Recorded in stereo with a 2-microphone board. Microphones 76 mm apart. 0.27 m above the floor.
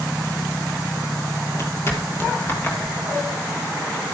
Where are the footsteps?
35° left (ahead or behind), 6.5 m; by 4.2 s 15° left (ahead or behind), 7 m.